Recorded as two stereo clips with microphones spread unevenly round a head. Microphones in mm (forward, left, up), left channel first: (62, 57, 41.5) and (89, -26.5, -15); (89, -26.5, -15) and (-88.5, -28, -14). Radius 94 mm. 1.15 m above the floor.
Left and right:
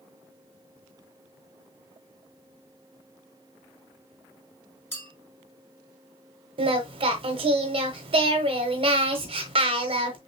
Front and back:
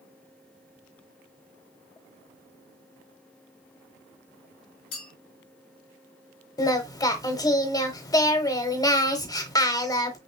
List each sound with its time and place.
4.9 s a clink: 50° left, 3 m
6.6 s singing: 40° right, 1.0 m